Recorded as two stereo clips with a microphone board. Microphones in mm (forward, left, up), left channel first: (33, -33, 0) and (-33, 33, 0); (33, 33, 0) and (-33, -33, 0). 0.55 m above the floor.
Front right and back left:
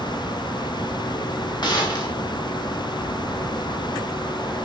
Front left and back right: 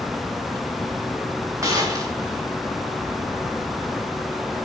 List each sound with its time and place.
1.6 s a gunshot: 80° right, 4 m